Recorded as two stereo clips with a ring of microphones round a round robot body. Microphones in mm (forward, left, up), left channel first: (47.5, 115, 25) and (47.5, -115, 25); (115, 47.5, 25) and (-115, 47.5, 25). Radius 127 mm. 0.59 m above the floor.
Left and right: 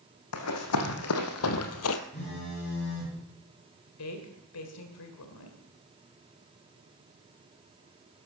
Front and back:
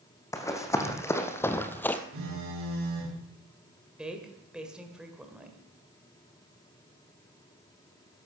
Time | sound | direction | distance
0.3 | running footsteps | 75° left | 2 m
2.1 | a phone buzzing | 155° left | 6 m
4.0 | a woman speaking | 95° left | 1.9 m